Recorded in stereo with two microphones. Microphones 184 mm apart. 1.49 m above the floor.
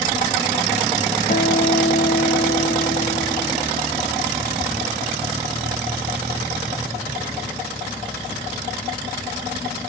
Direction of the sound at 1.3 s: 45° left (ahead or behind).